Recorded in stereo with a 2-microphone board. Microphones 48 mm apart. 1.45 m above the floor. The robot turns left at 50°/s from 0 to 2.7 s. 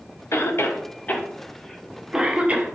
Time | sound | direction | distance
0.3 | a cough | 65° left (ahead or behind) | 0.6 m